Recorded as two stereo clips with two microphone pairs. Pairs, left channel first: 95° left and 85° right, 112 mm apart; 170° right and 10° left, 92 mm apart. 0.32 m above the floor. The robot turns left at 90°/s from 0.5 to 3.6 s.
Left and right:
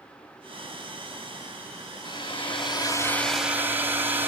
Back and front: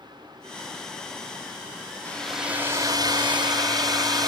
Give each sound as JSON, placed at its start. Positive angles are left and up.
{"t": 2.0, "sound": "a hair dryer", "azimuth_deg": 125, "distance_m": 2.0}